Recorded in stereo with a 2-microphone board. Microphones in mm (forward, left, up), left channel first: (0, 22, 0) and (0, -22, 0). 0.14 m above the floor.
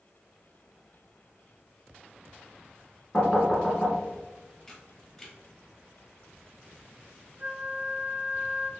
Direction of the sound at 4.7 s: 10° left (ahead or behind).